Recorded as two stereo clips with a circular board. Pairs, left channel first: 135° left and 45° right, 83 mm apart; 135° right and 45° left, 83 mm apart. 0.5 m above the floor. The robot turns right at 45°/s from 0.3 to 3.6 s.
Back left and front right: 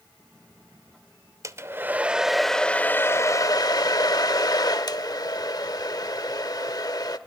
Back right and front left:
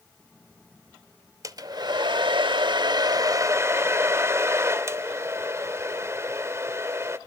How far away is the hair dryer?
About 0.9 m.